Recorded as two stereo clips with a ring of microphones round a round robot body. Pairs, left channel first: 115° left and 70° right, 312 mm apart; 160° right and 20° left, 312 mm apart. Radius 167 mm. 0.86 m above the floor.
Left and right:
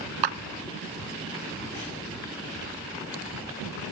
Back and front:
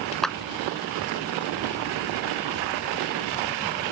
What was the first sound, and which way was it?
A clap, 70° right.